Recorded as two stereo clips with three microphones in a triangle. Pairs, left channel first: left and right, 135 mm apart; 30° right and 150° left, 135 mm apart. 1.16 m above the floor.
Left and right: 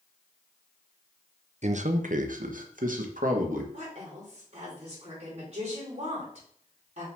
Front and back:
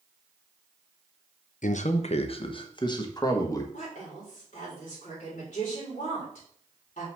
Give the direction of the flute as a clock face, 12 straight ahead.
I don't hear a flute.